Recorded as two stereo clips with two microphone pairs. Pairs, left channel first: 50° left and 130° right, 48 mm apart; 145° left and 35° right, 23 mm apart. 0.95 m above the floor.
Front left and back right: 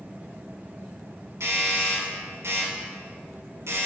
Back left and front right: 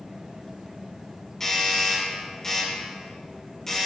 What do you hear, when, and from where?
1.4 s a doorbell: 145° right, 4 m